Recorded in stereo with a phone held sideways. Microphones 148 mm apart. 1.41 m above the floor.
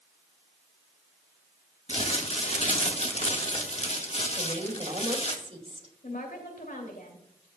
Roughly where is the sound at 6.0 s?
Left.